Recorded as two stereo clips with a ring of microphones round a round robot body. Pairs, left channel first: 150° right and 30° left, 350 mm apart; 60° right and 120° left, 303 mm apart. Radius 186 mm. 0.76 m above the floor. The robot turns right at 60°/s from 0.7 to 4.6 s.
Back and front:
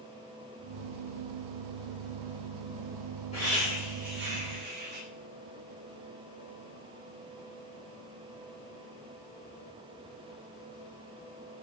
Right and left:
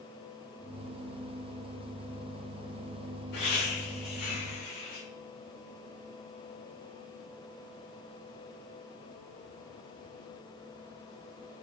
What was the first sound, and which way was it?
Laughter, 80° right.